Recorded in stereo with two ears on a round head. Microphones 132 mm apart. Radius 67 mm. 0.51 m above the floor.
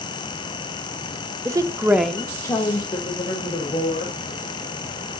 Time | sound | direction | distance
1.4 | a woman speaking | 20° right (ahead or behind) | 1.2 m